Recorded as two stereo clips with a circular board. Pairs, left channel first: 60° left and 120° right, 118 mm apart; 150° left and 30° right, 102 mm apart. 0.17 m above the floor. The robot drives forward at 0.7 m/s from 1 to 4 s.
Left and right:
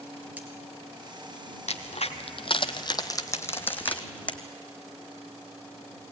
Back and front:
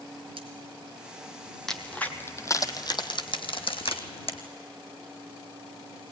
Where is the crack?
65° left, 1.2 m; by 4.4 s 135° left, 1.5 m.